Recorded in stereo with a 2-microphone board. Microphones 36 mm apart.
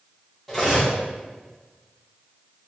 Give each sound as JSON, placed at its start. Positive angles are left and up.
{"t": 0.5, "sound": "cutlery clinking", "side_deg": 5, "distance_m": 1.0}